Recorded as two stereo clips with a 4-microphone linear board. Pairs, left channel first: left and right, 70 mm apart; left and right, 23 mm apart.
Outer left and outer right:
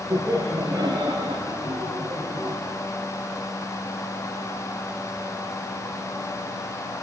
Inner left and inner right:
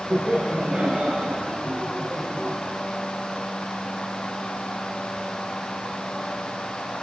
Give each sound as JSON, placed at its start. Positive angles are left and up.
{"t": 0.1, "sound": "laughter", "side_deg": -65, "distance_m": 5.0}